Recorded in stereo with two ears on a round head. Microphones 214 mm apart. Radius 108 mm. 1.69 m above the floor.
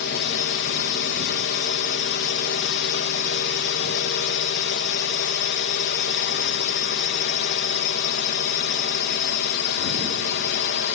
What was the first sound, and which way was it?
A drone, 45° left (ahead or behind).